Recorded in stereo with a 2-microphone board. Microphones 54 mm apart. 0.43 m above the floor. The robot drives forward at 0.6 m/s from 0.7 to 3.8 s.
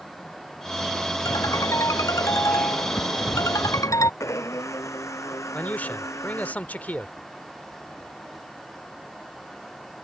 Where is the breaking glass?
I don't hear breaking glass.